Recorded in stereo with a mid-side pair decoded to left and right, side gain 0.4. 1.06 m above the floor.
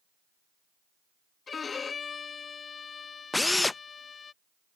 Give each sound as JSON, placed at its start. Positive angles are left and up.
{"t": 1.5, "sound": "a violin", "azimuth_deg": 45}
{"t": 3.3, "sound": "a drill", "azimuth_deg": 20}